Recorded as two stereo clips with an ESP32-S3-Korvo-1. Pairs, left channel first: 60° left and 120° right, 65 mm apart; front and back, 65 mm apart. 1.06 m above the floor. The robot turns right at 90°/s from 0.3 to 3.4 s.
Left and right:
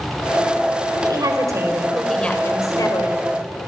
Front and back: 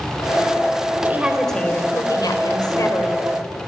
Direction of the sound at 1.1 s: 120° right.